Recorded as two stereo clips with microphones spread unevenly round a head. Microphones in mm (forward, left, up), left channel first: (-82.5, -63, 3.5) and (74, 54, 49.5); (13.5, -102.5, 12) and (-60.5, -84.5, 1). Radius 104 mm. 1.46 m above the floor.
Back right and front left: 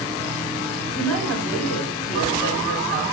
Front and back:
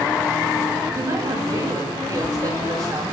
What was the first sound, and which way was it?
A woman speaking, 155° right.